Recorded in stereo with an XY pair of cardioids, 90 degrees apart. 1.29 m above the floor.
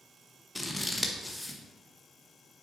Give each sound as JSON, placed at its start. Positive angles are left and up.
{"t": 0.6, "sound": "scissors", "azimuth_deg": 10, "distance_m": 1.3}